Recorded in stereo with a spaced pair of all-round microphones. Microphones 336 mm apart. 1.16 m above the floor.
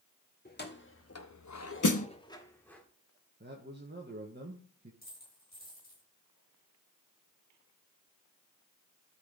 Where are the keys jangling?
30° left (ahead or behind), 1.7 m; by 2.8 s 5° left (ahead or behind), 2 m.